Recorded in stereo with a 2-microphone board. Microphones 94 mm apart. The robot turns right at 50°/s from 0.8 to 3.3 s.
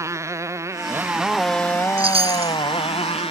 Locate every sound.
0.0 s a motorcycle: 30° right; by 3.3 s 95° left
2.0 s a chime: 65° right (ahead or behind); by 2.6 s 85° right